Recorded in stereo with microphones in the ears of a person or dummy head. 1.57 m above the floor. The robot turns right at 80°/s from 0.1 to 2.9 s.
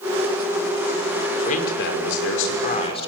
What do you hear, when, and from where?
1.4 s a man speaking: 40° left, 5 m; by 3.1 s 155° left, 5 m